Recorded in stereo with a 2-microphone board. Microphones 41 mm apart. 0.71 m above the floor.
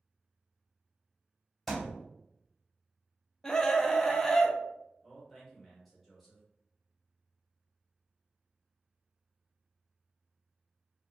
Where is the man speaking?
5° right (ahead or behind), 1.1 m.